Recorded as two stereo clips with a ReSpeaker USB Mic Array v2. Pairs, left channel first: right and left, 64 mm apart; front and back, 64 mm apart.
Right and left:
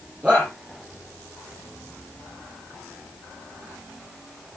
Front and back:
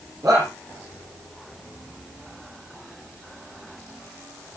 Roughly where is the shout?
Behind left.